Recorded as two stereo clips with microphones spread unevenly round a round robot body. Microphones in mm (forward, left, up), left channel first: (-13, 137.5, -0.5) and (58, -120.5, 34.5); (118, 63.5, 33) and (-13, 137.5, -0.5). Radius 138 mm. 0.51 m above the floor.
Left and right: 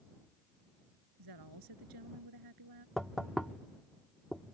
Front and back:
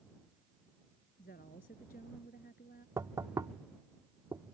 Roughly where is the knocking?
Behind.